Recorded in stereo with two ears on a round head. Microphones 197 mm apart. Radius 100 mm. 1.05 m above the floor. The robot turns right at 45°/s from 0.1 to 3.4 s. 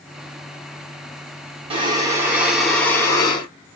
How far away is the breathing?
About 0.9 m.